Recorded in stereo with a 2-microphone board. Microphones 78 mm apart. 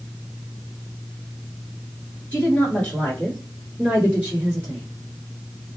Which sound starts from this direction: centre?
A woman speaking, at 2.3 s.